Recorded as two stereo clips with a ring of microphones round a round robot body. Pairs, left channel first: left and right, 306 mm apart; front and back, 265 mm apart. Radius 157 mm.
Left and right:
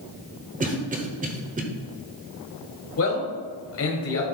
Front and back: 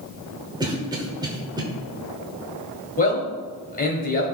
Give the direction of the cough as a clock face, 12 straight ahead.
4 o'clock.